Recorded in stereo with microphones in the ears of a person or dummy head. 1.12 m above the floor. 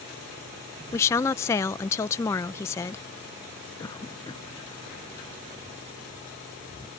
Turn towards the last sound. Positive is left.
turn(degrees=20)  # may be behind; listen again after turning